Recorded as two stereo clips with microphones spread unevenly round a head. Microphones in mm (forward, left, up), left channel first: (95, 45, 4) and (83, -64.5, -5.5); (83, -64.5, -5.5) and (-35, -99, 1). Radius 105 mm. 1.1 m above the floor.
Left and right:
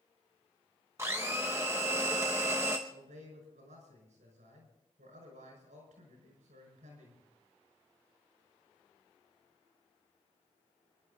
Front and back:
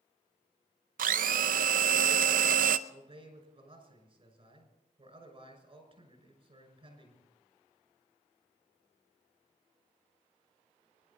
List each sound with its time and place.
1.0 s a blender: 175° right, 0.6 m
2.9 s a man speaking: 120° right, 6 m